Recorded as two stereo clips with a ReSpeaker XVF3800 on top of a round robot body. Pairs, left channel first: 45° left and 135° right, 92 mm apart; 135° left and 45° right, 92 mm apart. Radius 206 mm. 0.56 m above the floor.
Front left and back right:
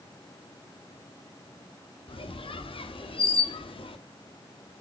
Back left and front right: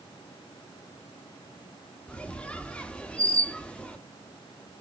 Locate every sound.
2.1 s a squeak: 60° left, 1.2 m